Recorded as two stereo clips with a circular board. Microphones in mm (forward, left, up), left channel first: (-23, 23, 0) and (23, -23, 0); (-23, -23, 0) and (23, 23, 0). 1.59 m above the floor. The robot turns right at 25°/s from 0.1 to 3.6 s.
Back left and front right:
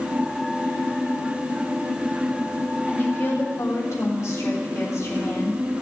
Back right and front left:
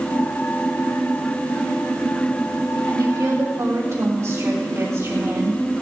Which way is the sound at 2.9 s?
75° left.